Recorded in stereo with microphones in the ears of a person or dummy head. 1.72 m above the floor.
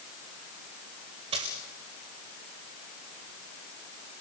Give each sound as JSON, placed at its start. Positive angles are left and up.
{"t": 1.3, "sound": "a dropped coin", "side_deg": -30, "distance_m": 2.0}